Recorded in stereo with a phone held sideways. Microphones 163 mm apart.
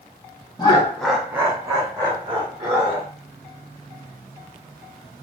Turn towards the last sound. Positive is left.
turn(degrees=-30)  # may be behind; listen again after turning